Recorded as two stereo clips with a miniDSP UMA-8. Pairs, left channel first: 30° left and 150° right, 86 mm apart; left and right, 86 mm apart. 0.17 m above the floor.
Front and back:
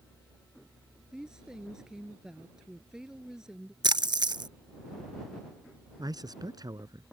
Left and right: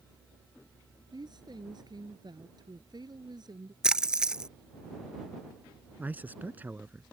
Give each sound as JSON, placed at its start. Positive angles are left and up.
{"t": 1.1, "sound": "a woman speaking", "azimuth_deg": -70}
{"t": 3.8, "sound": "a splash", "azimuth_deg": -170}
{"t": 6.0, "sound": "a man speaking", "azimuth_deg": -150}